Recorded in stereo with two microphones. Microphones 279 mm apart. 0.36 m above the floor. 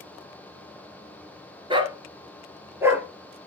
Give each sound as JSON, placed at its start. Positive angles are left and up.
{"t": 1.7, "sound": "a dog barking", "side_deg": -20, "distance_m": 1.9}